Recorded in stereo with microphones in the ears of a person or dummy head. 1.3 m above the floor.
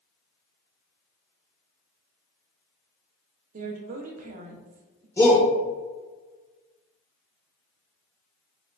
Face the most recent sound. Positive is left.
turn(degrees=15)  # may be behind; listen again after turning